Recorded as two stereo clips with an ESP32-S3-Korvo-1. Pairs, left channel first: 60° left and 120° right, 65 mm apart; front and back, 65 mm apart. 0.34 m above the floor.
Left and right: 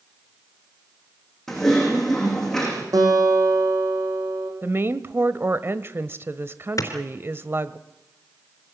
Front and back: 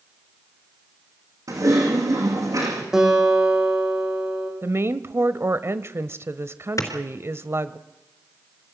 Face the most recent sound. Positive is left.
turn(degrees=30)